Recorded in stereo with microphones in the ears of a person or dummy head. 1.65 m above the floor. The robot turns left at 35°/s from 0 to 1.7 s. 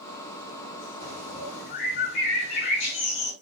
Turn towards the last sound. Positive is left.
turn(degrees=55)  # may be behind; listen again after turning